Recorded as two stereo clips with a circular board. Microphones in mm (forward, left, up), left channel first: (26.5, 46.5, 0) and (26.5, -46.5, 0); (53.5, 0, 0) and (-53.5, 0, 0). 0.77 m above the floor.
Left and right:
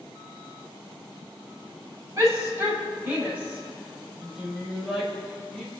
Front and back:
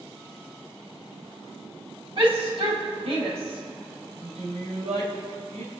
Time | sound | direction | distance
2.2 | a shout | 150° right | 5.5 m